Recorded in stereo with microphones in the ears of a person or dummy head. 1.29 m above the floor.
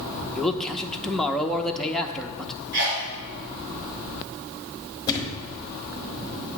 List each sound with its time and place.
0.3 s a man speaking: centre (ahead or behind), 0.6 m
2.7 s a sneeze: 65° right (ahead or behind), 2.5 m
5.1 s a thud: 20° left (ahead or behind), 1.2 m